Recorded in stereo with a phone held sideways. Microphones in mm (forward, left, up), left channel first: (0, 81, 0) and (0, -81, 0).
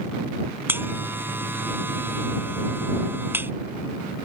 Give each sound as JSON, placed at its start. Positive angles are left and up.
{"t": 0.7, "sound": "a buzzer", "side_deg": -10}